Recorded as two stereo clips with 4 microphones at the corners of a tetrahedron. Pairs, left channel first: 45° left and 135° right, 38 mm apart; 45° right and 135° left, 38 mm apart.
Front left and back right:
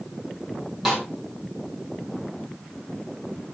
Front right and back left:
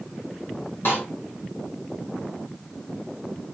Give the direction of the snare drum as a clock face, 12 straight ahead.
2 o'clock.